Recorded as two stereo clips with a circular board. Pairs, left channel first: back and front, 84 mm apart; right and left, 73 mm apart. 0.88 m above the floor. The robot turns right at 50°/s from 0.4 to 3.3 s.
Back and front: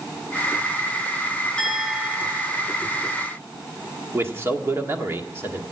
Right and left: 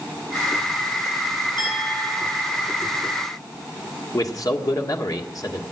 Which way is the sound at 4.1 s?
60° right.